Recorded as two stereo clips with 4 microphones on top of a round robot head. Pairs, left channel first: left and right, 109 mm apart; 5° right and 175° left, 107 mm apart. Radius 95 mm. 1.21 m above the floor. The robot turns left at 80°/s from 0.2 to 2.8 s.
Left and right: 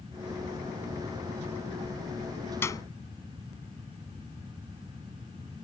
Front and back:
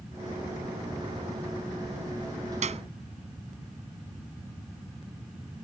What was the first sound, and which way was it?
A clap, 160° left.